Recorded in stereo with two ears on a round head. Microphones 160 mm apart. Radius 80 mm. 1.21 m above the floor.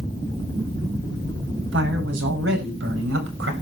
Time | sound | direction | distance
1.7 | a man speaking | 80° right | 8.5 m